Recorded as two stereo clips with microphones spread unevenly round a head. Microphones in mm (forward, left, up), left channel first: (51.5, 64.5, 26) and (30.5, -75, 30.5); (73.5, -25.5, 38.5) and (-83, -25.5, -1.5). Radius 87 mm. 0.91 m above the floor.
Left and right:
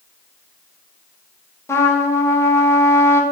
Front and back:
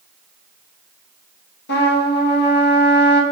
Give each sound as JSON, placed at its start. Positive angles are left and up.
{"t": 1.7, "sound": "a trumpet", "azimuth_deg": 15, "distance_m": 1.5}